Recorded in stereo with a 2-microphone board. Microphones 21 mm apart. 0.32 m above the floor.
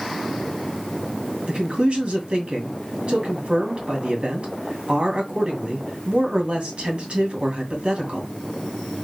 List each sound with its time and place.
1.5 s a man speaking: 60° right (ahead or behind), 2 m